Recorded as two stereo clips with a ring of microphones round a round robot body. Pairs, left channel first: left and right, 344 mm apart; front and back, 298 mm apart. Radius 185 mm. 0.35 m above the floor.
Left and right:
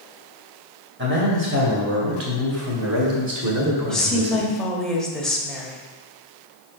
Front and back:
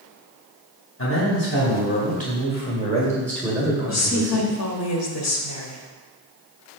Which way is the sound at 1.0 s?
40° right.